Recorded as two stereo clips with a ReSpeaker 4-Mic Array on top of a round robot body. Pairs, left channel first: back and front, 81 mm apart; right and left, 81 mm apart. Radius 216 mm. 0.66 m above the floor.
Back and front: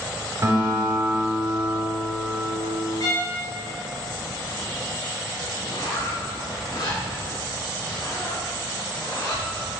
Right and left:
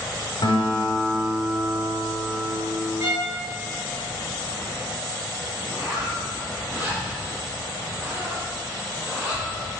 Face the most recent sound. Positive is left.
turn(degrees=155)